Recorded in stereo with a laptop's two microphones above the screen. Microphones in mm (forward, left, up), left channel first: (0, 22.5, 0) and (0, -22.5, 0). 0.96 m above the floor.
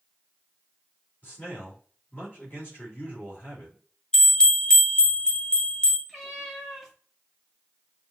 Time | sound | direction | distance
1.2 | a man speaking | 40° left (ahead or behind) | 2.5 m
4.1 | a bell | 15° left (ahead or behind) | 1.0 m
6.1 | a cat meowing | centre (ahead or behind) | 1.1 m